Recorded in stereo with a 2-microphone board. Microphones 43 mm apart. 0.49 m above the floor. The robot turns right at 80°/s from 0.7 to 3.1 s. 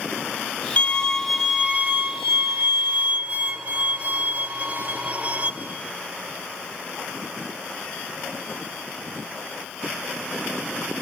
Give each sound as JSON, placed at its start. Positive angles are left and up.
{"t": 0.8, "sound": "a violin", "azimuth_deg": 140, "distance_m": 1.1}